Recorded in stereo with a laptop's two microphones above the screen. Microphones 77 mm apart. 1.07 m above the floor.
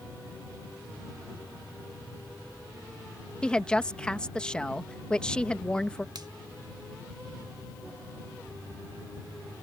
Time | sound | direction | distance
3.4 | a woman speaking | 10° left (ahead or behind) | ?
6.2 | a finger snap | 60° right (ahead or behind) | ?